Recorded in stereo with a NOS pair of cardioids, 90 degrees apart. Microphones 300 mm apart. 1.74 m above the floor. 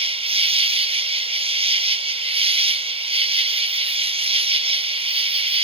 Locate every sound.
0.0 s an insect: 20° right